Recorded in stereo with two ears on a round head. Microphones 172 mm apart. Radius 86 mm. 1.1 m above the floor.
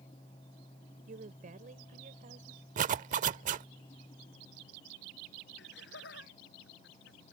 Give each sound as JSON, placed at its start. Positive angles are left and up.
{"t": 1.1, "sound": "a woman speaking", "side_deg": -45}
{"t": 2.8, "sound": "a zipper", "side_deg": -45}
{"t": 5.6, "sound": "laughter", "side_deg": 65}